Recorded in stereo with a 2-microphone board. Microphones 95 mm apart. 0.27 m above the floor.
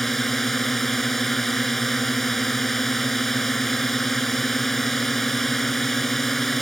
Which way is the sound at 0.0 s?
Centre (ahead or behind).